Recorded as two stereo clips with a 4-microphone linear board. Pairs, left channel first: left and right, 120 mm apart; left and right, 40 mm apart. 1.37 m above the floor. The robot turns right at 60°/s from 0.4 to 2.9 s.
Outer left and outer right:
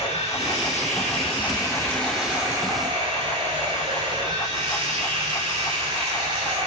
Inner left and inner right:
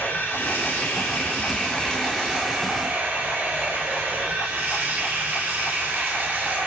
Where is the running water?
75° left, 6 m; by 6.7 s 135° right, 6 m.